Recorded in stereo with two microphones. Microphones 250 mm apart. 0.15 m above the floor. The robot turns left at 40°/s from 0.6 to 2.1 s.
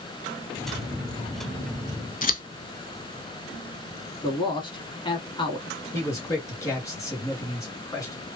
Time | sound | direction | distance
2.2 | scissors | 35° left (ahead or behind) | 0.5 m
4.2 | a man speaking | 20° left (ahead or behind) | 1.2 m
5.9 | a man speaking | 15° left (ahead or behind) | 1.7 m